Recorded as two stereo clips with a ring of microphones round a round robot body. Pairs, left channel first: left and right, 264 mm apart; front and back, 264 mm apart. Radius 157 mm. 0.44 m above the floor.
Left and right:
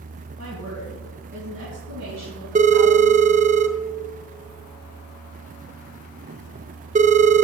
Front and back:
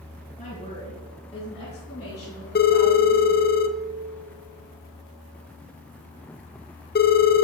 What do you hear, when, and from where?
0.4 s a woman speaking: 65° right, 3 m; by 3.5 s 80° right, 6.5 m
2.5 s a phone ringing: 35° right, 0.7 m